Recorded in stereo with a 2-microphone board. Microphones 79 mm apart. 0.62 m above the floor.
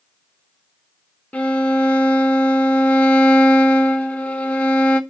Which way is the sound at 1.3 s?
20° left (ahead or behind).